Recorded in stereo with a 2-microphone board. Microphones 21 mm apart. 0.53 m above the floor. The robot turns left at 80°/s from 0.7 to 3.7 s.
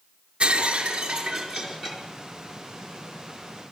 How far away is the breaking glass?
About 5.5 m.